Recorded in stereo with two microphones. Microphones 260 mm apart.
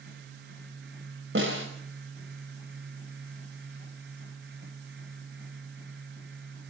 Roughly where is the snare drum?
Right.